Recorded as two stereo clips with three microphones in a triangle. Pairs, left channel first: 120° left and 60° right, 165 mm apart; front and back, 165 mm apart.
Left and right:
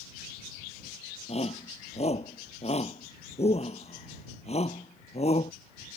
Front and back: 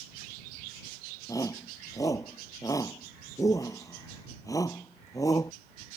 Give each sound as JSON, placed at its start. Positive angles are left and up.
{"t": 1.3, "sound": "a shout", "azimuth_deg": 70}